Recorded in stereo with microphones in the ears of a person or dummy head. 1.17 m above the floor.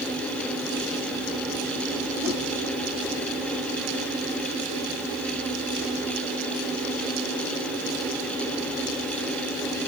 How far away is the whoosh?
About 7.5 m.